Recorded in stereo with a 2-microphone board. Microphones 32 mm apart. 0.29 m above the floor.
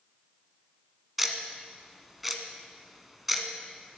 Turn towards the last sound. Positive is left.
turn(degrees=-5)  # may be behind; listen again after turning